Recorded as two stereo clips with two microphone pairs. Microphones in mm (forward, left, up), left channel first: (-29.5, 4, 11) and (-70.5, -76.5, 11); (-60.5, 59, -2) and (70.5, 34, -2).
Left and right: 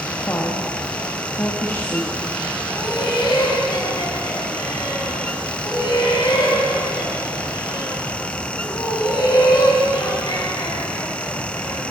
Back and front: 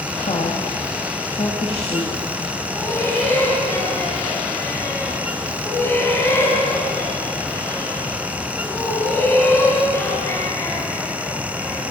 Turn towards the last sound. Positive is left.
turn(degrees=100)